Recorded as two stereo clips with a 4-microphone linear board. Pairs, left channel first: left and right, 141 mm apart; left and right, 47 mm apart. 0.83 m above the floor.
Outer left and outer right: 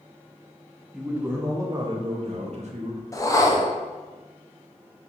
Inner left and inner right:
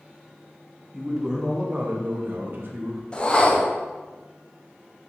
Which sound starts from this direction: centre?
A man speaking, at 0.9 s.